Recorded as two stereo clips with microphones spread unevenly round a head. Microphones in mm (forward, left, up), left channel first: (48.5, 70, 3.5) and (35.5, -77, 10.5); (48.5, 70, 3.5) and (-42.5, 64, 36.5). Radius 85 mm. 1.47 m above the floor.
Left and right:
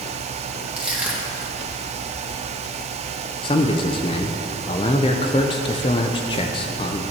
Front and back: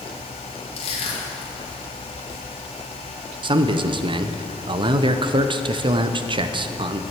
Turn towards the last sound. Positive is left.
turn(degrees=150)